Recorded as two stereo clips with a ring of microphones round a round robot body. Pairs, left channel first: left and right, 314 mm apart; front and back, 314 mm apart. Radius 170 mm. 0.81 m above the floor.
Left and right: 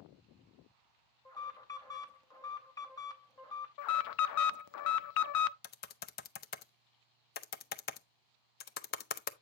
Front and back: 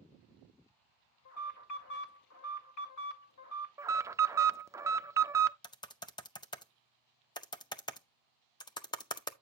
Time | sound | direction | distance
1.2 | an alarm | 15° left | 2.5 m
3.8 | an alarm | 100° left | 0.5 m
5.6 | typing on a keyboard | 65° left | 0.7 m